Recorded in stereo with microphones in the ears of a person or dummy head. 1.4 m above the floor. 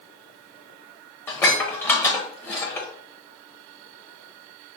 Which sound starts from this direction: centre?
Dishes clattering, at 1.3 s.